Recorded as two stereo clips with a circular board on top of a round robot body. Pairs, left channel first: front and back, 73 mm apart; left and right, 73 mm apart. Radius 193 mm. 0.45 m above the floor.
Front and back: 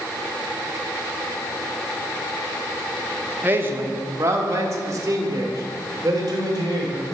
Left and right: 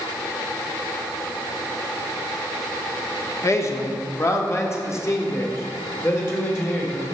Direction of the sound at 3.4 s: 125° left.